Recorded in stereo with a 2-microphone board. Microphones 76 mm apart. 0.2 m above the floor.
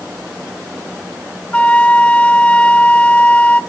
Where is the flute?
15° left (ahead or behind), 0.9 m.